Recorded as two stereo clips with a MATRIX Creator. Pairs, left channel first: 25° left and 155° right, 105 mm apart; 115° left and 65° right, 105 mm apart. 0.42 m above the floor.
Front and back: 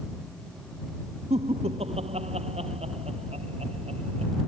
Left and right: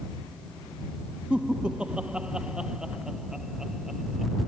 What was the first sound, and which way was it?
Laughter, 145° right.